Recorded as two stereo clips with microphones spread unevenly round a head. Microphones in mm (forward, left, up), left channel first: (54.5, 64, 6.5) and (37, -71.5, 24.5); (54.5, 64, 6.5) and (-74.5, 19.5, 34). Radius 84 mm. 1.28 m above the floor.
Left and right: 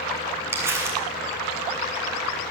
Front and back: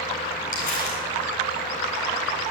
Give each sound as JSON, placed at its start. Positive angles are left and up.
{"t": 0.5, "sound": "crumpling", "azimuth_deg": -25, "distance_m": 7.5}